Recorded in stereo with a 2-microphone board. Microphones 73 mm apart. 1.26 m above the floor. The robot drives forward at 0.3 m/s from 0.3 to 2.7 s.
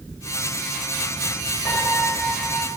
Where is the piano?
Centre (ahead or behind), 3.5 m.